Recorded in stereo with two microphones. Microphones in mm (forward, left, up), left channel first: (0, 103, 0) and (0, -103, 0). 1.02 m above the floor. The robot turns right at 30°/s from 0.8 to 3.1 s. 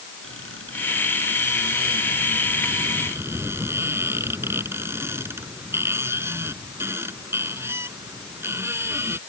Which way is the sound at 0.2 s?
80° right.